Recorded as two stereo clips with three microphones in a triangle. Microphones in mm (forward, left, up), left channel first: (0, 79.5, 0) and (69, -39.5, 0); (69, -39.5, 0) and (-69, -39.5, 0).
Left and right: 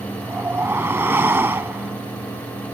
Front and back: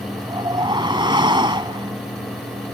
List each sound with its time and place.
0.2 s a whoosh: 130° right